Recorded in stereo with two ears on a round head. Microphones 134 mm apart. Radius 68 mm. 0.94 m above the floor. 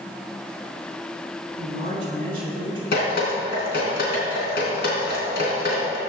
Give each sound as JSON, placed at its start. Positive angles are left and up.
{"t": 1.6, "sound": "a woman speaking", "side_deg": -40, "distance_m": 3.5}
{"t": 2.9, "sound": "dripping", "side_deg": 75, "distance_m": 3.5}